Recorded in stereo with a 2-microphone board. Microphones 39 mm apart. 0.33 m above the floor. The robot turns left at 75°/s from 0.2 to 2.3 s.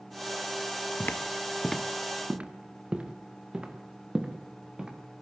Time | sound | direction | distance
1.0 | footsteps | 55° left (ahead or behind) | 1.2 m